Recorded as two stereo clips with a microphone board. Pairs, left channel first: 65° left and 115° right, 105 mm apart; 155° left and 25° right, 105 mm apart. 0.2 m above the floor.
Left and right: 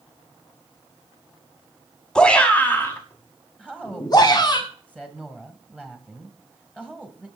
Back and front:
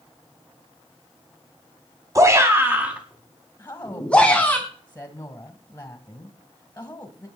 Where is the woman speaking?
130° left, 1.6 m.